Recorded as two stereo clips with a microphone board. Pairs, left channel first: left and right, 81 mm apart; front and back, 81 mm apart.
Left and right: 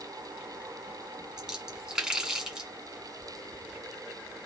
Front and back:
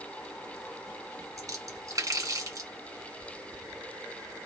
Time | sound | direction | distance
1.4 | a splash | 165° right | 2 m